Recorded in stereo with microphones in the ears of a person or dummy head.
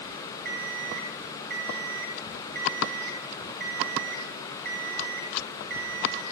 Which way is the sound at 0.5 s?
55° right (ahead or behind).